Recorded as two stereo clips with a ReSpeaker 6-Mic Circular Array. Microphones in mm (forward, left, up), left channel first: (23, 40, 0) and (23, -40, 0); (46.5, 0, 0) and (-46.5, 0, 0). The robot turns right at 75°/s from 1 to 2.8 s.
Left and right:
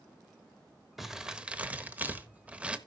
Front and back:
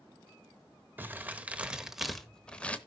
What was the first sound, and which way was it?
Crumpling, 170° right.